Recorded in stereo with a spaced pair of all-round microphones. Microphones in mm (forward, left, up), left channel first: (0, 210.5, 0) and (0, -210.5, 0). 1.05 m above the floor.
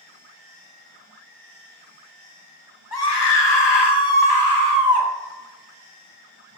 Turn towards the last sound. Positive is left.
turn(degrees=40)  # may be behind; listen again after turning